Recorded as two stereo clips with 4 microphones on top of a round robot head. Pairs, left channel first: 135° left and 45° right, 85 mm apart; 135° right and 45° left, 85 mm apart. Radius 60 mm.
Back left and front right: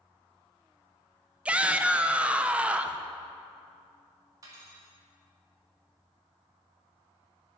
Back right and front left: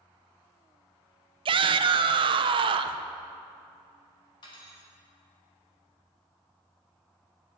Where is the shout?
30° left, 0.6 m.